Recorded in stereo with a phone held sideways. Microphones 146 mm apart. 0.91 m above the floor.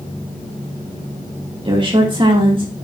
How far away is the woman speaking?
About 3 m.